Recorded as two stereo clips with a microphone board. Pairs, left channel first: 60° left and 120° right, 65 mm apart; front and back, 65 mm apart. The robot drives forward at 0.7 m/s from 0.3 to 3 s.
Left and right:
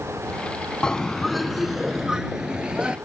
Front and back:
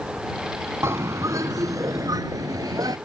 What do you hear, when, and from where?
0.8 s a bird: 135° left; by 3.0 s 165° left